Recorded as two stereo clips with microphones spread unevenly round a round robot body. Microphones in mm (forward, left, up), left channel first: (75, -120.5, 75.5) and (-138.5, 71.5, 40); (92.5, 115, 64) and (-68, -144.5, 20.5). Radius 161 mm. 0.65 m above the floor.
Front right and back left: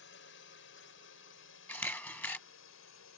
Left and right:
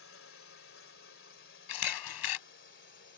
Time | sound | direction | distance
0.0 | a drone | 10° left | ?
1.7 | a camera shutter | 40° left | ?